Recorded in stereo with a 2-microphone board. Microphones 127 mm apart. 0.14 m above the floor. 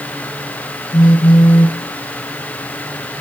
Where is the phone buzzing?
35° left (ahead or behind), 1.1 m.